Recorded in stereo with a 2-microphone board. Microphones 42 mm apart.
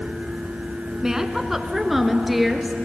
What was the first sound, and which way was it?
A woman speaking, 15° right (ahead or behind).